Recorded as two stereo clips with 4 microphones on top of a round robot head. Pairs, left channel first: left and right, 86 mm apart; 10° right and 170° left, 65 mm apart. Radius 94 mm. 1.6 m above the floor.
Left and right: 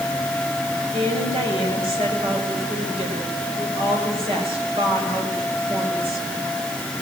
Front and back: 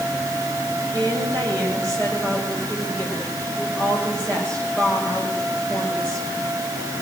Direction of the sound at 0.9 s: 80° right.